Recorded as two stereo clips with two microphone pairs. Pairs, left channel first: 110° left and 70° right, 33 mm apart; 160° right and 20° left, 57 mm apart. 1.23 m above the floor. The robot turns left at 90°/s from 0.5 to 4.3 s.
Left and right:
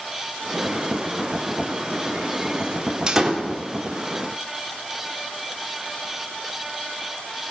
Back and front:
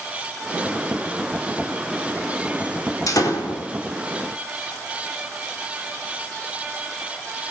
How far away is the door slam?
About 2.5 m.